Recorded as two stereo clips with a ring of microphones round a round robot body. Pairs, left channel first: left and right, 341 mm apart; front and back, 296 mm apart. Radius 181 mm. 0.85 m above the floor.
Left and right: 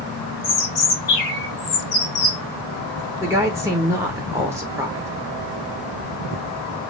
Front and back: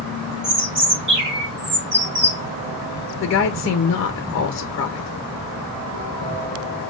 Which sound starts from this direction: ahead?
A woman speaking, at 3.2 s.